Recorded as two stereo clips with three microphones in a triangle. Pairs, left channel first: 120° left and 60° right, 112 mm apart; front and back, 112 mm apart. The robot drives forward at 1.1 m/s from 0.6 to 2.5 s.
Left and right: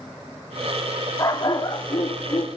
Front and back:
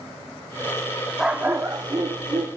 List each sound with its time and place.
1.2 s a dog barking: 95° left, 1.1 m; by 2.5 s 155° left, 1.8 m